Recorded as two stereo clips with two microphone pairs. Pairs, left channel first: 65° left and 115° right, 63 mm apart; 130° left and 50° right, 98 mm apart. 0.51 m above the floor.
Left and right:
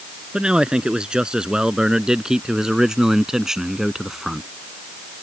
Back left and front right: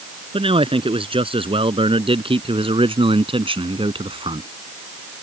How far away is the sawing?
I don't hear sawing.